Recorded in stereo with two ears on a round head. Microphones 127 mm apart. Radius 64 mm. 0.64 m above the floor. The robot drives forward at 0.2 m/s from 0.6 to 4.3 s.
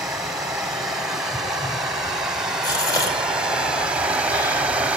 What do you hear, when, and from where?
0.0 s running water: 5° right (ahead or behind), 1.2 m; by 5.0 s 10° right (ahead or behind), 0.5 m
2.6 s a gasp: 30° left (ahead or behind), 2 m; by 4.6 s 25° left (ahead or behind), 2.5 m